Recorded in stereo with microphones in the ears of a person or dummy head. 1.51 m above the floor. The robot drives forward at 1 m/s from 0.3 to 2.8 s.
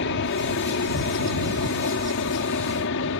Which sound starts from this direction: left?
An aircraft, at 0.0 s.